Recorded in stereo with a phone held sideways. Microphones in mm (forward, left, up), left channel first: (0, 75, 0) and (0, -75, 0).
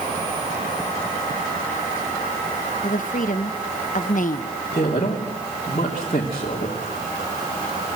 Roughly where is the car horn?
No car horn in this recording.